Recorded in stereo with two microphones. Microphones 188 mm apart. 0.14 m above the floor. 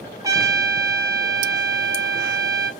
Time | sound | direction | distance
0.2 | a trumpet | 20° right (ahead or behind) | 0.5 m